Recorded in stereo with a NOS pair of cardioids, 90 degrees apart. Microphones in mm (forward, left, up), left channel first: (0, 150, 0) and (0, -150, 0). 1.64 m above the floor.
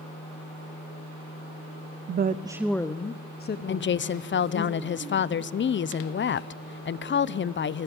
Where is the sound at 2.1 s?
40° right, 0.7 m; by 4.7 s 50° left, 2 m.